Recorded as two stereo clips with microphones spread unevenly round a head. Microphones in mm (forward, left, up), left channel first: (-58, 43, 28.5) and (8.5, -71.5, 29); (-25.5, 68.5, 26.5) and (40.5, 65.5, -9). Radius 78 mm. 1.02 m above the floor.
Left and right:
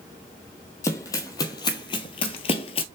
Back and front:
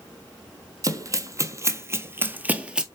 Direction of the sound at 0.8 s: 50° left.